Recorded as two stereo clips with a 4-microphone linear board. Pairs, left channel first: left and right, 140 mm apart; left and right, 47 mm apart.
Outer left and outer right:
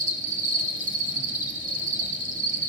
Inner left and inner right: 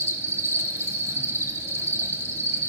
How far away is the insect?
About 1.1 m.